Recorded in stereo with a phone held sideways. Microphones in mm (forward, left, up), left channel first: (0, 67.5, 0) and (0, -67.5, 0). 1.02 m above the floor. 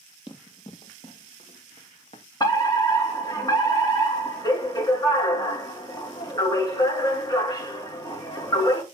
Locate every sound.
0.3 s running footsteps: 40° left (ahead or behind), 1.4 m; by 2.2 s 50° left (ahead or behind), 2 m
2.4 s a fire alarm: 30° left (ahead or behind), 3 m